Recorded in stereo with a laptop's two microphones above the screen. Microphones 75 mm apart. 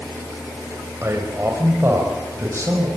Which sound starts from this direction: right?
A man speaking, at 1.0 s.